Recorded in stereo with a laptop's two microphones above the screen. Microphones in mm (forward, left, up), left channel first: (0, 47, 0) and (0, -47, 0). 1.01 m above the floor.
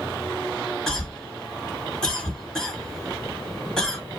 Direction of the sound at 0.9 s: 10° left (ahead or behind).